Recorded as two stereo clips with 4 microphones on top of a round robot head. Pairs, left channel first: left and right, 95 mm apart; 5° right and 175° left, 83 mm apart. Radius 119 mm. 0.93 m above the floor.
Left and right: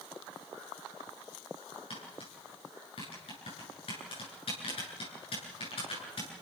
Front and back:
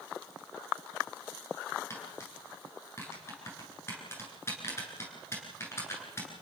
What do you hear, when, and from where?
1.9 s tapping: 55° left, 9 m